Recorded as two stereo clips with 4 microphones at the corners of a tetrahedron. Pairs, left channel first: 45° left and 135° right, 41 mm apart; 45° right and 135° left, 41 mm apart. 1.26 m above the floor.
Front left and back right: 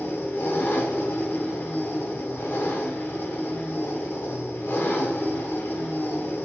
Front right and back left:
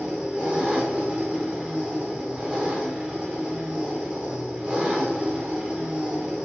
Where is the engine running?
70° left, 1.1 m.